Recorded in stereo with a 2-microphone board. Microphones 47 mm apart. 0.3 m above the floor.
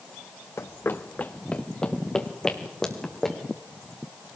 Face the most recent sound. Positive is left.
turn(degrees=10)  # may be behind; listen again after turning